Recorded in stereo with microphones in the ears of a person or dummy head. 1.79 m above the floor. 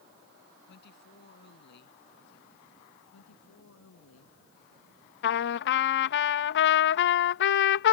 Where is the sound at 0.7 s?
55° left (ahead or behind).